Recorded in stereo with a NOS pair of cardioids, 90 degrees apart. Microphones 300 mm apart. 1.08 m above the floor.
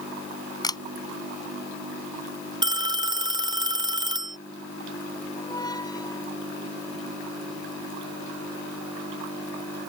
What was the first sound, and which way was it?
A camera shutter, 15° left.